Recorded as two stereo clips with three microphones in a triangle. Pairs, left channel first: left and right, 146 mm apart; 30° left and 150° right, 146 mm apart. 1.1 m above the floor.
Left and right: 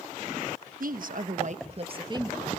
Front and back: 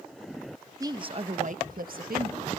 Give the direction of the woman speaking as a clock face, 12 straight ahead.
3 o'clock.